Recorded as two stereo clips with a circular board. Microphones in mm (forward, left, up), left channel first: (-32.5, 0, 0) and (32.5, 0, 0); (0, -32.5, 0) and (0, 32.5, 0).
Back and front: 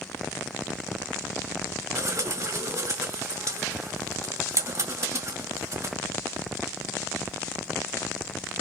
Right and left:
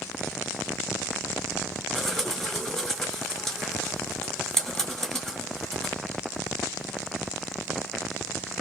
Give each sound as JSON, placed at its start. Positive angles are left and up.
{"t": 1.9, "sound": "a bird", "azimuth_deg": -5, "distance_m": 2.5}